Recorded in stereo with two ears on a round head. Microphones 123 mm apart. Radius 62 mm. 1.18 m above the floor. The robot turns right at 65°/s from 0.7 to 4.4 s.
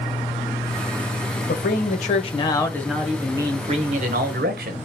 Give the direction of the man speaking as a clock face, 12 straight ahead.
9 o'clock.